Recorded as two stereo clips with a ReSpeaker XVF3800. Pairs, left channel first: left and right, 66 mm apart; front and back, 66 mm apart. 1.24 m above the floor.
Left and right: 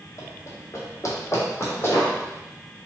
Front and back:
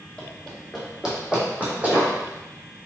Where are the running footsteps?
80° left, 1.9 m; by 2.1 s 130° left, 2 m.